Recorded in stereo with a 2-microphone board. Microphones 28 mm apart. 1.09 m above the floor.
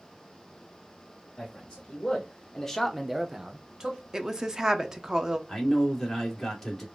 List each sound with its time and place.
1.4 s a man speaking: 25° left (ahead or behind), 2 m; by 4.0 s 25° right (ahead or behind), 1.5 m
4.1 s a woman speaking: 20° right (ahead or behind), 0.6 m
5.5 s a man speaking: 10° left (ahead or behind), 2 m